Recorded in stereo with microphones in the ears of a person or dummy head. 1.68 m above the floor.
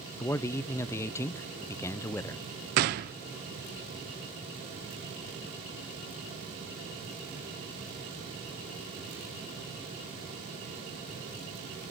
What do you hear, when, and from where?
0.2 s a man speaking: 10° left (ahead or behind), 0.6 m
2.8 s a gunshot: 50° right (ahead or behind), 0.7 m